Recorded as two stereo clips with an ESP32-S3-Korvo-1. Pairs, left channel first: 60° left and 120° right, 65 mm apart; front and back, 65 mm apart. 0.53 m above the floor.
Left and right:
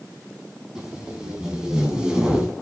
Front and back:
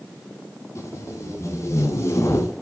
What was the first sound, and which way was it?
Tape being pulled, 45° right.